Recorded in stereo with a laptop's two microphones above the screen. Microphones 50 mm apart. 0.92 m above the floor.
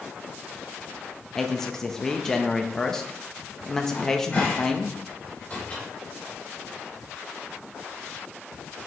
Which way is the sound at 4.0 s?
30° left (ahead or behind).